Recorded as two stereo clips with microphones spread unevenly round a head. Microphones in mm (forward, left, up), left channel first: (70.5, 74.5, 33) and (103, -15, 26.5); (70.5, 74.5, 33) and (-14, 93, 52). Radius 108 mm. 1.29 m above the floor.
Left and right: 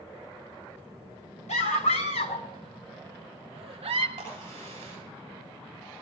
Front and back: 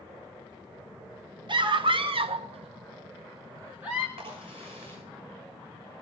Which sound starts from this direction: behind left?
A scream, at 1.5 s.